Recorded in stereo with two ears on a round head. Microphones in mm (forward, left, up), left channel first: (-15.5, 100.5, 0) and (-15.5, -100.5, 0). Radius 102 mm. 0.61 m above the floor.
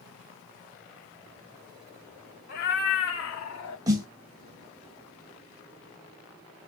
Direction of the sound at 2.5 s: 55° left (ahead or behind).